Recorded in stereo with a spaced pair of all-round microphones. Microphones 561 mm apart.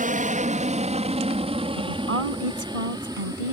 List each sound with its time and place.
0.0 s an aircraft: 15° right (ahead or behind); by 3.5 s 5° right (ahead or behind)
1.8 s a woman speaking: 65° right (ahead or behind)